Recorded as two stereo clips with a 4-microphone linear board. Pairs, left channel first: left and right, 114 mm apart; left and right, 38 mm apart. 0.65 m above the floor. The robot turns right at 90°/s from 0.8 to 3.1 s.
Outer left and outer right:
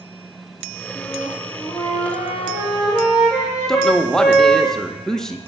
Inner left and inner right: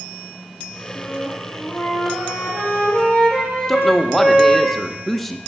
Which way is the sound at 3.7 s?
5° left (ahead or behind).